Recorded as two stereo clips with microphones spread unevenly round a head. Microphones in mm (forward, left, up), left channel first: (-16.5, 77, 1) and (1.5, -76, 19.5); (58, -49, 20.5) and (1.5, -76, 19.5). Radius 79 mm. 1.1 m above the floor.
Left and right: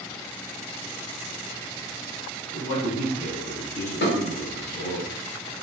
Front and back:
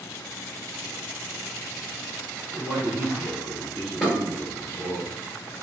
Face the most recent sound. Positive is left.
turn(degrees=115)